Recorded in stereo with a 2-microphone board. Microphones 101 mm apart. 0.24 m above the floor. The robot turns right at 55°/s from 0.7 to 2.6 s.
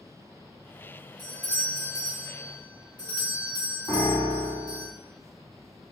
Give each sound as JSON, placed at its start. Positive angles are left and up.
{"t": 1.2, "sound": "a doorbell", "azimuth_deg": 15, "distance_m": 1.8}
{"t": 3.9, "sound": "a piano", "side_deg": 50, "distance_m": 1.7}